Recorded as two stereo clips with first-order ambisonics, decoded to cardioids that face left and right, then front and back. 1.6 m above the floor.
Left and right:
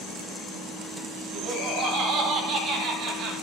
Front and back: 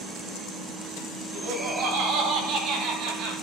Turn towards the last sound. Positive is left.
turn(degrees=-155)